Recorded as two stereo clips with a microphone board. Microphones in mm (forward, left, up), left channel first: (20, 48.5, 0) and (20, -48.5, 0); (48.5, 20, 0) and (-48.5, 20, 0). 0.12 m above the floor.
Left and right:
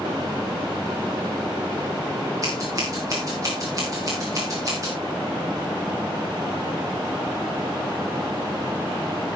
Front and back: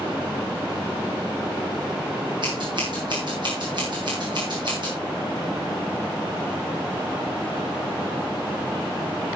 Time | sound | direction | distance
2.4 | scissors | 145° right | 7.5 m